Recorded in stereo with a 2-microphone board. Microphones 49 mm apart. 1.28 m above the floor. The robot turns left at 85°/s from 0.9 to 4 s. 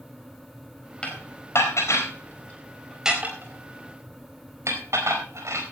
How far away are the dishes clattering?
About 4 m.